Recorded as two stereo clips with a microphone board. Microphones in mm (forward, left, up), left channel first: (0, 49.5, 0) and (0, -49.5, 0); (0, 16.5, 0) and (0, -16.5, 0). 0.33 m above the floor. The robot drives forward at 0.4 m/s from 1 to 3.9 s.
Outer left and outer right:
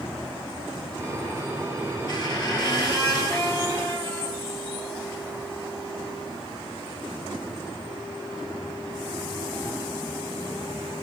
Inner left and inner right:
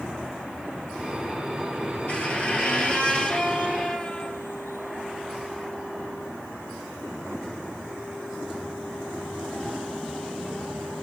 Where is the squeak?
45° left (ahead or behind), 1.7 m; by 4.5 s 35° left (ahead or behind), 2 m.